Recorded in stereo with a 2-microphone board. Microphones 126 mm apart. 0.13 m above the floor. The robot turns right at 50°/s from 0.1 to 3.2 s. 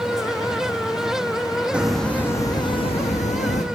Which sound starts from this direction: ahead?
A hiss, at 1.7 s.